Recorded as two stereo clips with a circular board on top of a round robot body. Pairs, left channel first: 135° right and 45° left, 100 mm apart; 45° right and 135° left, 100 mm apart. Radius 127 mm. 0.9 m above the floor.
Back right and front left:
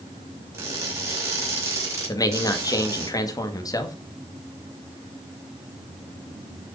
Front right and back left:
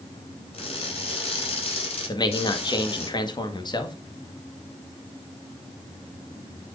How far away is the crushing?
About 5.5 m.